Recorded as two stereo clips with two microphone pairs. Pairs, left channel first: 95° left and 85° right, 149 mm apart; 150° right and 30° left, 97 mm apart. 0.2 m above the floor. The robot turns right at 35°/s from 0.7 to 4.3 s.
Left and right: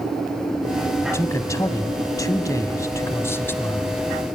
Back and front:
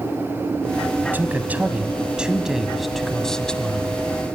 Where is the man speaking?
55° left, 1.0 m; by 4.0 s 155° left, 1.0 m.